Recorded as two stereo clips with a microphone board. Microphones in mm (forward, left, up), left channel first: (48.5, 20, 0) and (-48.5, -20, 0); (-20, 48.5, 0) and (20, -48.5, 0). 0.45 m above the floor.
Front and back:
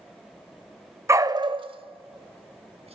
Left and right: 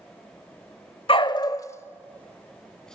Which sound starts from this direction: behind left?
A dog barking, at 1.1 s.